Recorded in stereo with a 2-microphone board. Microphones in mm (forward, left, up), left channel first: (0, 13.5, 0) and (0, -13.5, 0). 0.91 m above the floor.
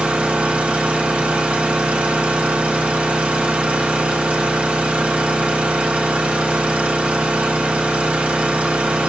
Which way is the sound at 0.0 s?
65° right (ahead or behind).